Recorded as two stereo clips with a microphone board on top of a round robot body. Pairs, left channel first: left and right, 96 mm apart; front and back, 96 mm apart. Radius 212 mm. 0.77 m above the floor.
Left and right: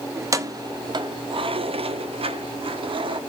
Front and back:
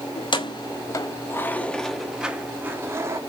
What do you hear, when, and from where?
0.1 s keys jangling: 30° right, 1.2 m; by 3.2 s 120° right, 1.3 m